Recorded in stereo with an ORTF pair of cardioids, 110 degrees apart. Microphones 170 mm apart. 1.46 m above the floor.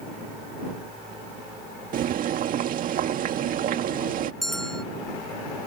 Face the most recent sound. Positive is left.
turn(degrees=5)